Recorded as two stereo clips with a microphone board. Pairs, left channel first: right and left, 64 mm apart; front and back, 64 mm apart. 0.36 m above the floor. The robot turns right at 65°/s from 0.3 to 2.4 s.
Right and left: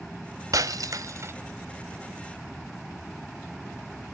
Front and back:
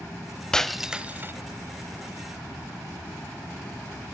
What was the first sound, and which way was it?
Breaking glass, 80° left.